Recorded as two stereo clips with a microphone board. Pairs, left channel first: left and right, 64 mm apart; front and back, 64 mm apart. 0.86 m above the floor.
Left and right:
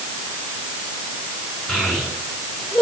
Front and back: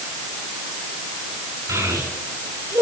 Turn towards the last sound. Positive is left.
turn(degrees=170)